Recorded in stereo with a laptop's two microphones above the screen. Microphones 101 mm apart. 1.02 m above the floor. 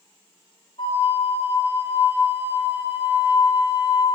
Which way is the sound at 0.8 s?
60° left (ahead or behind).